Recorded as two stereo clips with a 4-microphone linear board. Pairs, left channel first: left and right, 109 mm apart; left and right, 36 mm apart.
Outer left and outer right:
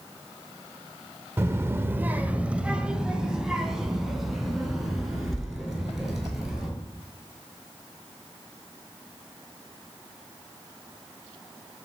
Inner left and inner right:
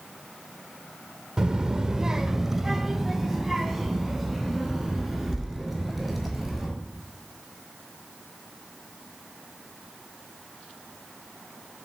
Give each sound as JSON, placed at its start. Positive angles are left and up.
{"t": 1.4, "sound": "a child speaking", "side_deg": -20, "distance_m": 0.6}